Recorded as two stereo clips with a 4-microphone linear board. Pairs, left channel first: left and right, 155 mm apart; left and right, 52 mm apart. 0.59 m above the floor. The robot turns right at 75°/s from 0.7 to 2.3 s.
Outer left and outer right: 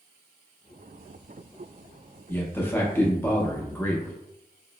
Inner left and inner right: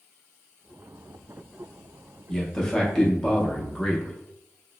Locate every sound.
2.3 s a man speaking: 15° left (ahead or behind), 0.6 m